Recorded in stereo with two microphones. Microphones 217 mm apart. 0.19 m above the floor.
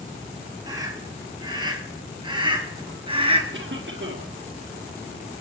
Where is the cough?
55° right (ahead or behind), 3 m.